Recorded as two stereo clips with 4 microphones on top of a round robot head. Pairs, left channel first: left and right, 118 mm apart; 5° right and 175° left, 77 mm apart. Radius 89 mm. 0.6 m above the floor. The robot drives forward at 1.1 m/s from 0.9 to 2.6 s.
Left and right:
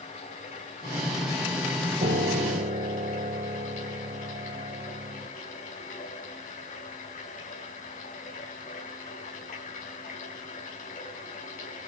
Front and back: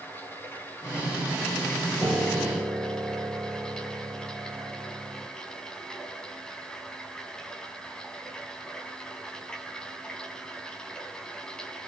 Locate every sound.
0.0 s running water: 60° left, 6 m; by 11.9 s 80° left, 5 m
2.0 s a piano: 100° right, 3 m; by 5.3 s 115° right, 3.5 m